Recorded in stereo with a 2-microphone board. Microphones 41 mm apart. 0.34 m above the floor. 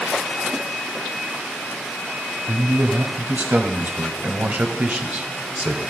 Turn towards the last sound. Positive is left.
turn(degrees=-45)  # may be behind; listen again after turning